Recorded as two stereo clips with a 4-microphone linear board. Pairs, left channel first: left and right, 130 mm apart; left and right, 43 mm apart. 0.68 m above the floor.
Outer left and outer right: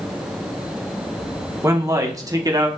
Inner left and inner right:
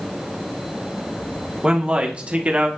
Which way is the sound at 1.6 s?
25° right (ahead or behind).